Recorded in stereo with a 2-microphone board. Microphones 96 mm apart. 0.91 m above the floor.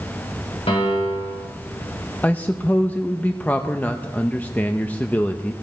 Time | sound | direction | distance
0.7 | a piano | 80° left | 5 m
2.2 | a man speaking | 15° left (ahead or behind) | 0.6 m